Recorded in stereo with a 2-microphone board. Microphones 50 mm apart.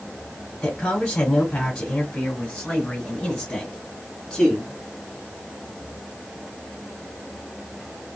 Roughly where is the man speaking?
Centre.